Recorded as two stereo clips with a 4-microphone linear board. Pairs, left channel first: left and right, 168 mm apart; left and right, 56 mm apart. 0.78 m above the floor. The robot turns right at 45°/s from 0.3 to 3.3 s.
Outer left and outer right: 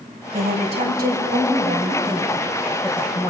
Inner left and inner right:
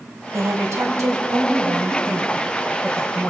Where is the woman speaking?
110° right, 4.5 m; by 3.3 s 20° left, 4.5 m.